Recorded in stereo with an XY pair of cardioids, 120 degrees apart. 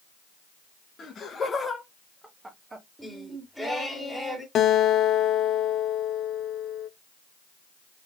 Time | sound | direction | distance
1.0 | laughter | 45° left | 1.2 m
3.0 | singing | 5° left | 1.7 m
4.5 | a guitar | 60° left | 0.6 m